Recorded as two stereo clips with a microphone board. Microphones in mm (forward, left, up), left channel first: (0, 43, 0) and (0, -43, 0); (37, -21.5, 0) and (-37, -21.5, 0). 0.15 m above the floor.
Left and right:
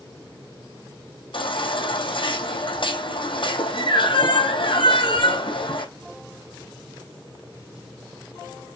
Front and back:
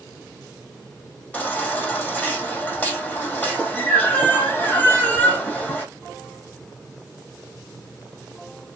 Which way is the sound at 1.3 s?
70° left.